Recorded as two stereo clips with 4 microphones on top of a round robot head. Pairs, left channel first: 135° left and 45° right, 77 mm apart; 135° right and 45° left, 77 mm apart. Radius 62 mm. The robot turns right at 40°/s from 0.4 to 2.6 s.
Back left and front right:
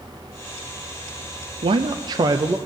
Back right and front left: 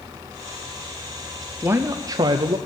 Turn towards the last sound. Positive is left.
turn(degrees=15)